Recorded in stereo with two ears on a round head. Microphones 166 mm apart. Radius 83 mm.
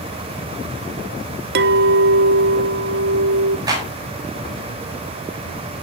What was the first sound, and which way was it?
A clink, 60° right (ahead or behind).